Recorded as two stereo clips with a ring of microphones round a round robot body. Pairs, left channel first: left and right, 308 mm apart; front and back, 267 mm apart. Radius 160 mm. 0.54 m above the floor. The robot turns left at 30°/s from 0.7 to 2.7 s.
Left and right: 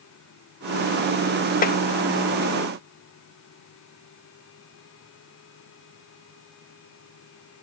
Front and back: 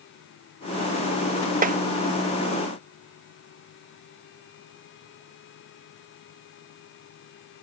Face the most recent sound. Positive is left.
turn(degrees=105)